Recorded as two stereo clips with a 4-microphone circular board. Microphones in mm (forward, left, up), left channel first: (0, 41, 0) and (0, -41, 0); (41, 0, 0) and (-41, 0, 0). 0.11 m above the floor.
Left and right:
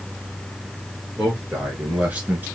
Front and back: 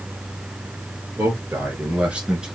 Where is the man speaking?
175° right, 1.9 m; by 2.5 s 120° right, 1.7 m.